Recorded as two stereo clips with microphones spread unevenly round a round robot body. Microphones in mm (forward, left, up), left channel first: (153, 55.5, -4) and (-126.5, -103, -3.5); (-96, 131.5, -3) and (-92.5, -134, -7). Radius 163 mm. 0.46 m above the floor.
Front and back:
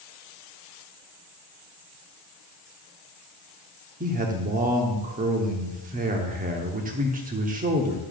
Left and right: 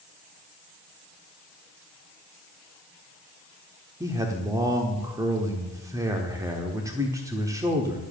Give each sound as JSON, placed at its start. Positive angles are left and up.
{"t": 4.0, "sound": "a man speaking", "azimuth_deg": -145, "distance_m": 0.9}